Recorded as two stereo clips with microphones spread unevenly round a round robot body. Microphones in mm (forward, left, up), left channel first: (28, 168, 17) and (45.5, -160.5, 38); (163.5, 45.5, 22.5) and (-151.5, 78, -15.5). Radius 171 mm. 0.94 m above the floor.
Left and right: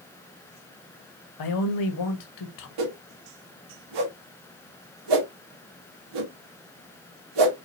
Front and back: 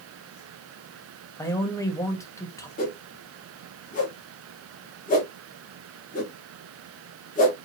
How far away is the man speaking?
About 1.3 m.